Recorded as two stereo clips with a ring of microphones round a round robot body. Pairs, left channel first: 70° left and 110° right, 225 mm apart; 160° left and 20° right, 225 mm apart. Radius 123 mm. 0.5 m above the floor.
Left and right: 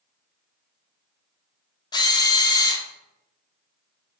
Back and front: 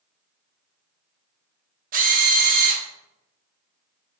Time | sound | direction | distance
1.9 | a drill | 5° left | 0.8 m